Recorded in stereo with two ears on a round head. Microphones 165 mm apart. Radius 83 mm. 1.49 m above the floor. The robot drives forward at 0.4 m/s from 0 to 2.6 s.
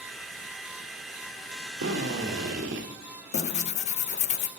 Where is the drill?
75° right (ahead or behind), 2.5 m; by 2.9 s 70° right (ahead or behind), 2.5 m.